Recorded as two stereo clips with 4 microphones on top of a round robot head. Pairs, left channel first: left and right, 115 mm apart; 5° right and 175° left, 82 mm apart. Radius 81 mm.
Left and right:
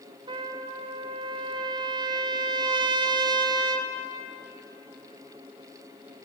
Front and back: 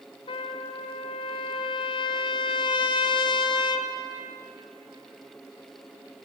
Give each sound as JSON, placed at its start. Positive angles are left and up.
{"t": 0.3, "sound": "a trumpet", "azimuth_deg": -35, "distance_m": 0.5}